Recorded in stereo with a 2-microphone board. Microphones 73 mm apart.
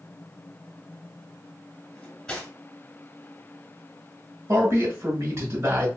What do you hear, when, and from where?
1.9 s cutlery clinking: 10° left (ahead or behind), 1.6 m
4.5 s a man speaking: 45° right (ahead or behind), 1.3 m